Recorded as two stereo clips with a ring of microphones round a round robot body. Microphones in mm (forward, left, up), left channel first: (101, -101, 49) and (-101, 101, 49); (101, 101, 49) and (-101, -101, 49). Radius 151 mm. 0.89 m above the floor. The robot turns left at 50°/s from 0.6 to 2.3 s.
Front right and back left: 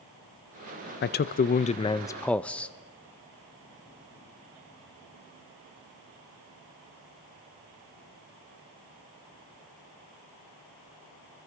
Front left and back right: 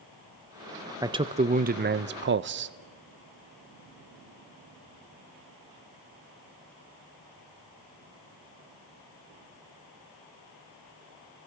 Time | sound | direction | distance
1.0 | a man speaking | 65° right | 0.5 m